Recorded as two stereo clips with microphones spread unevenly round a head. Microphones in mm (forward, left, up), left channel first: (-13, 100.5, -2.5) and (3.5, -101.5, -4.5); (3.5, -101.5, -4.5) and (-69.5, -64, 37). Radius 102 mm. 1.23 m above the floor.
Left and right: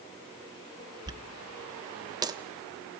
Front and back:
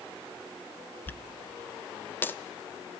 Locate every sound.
1.1 s a dropped coin: 130° right, 0.7 m